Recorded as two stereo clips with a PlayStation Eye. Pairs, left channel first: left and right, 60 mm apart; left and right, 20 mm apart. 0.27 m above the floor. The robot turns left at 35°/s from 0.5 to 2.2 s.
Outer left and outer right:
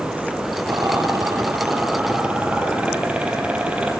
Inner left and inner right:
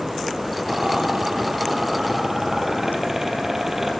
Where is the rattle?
70° right (ahead or behind), 4 m; by 3.9 s 20° right (ahead or behind), 4 m.